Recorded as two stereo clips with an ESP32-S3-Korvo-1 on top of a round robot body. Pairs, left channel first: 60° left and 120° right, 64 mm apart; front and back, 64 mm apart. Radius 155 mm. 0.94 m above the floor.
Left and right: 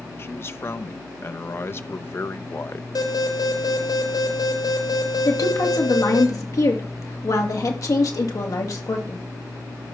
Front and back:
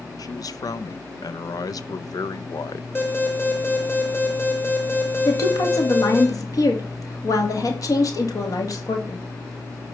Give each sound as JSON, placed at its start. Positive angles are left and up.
{"t": 0.2, "sound": "a man speaking", "azimuth_deg": 10, "distance_m": 0.9}
{"t": 3.0, "sound": "an alarm", "azimuth_deg": 60, "distance_m": 3.5}
{"t": 5.2, "sound": "a woman speaking", "azimuth_deg": 30, "distance_m": 2.5}